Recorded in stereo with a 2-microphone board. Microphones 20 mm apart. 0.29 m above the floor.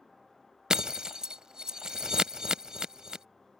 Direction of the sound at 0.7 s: 45° right (ahead or behind).